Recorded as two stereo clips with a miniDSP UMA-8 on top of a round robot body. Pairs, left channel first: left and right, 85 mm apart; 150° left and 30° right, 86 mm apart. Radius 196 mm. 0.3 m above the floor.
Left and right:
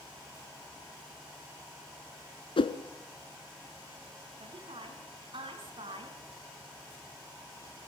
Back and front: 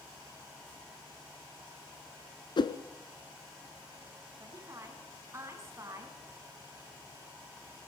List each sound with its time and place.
2.6 s a whoosh: 115° left, 1.0 m
4.4 s a woman speaking: 85° right, 6 m